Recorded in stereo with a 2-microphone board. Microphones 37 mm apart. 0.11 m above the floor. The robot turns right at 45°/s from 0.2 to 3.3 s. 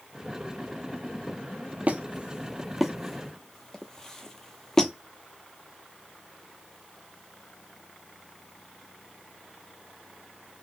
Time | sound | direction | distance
1.9 | a squeak | 45° right (ahead or behind) | 0.6 m